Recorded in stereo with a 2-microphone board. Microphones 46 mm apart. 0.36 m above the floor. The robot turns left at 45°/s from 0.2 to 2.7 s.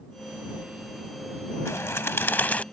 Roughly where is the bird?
Left.